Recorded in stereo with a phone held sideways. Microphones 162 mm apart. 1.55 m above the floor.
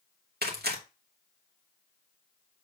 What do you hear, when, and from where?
0.4 s tearing paper: 80° right, 2.5 m